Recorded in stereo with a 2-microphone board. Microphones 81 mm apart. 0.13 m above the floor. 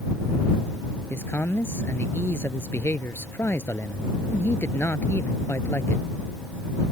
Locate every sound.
1.1 s a man speaking: 30° left (ahead or behind)